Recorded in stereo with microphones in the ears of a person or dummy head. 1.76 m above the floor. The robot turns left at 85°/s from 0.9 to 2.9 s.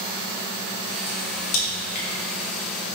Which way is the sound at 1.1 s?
45° left (ahead or behind).